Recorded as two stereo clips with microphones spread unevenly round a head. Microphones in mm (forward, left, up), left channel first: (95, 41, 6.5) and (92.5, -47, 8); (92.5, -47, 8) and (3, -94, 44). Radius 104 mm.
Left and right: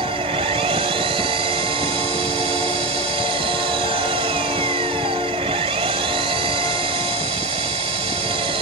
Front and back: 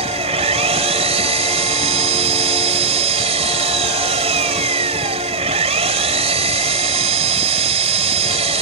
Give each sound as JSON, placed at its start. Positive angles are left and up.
{"t": 0.0, "sound": "an engine running", "azimuth_deg": -145}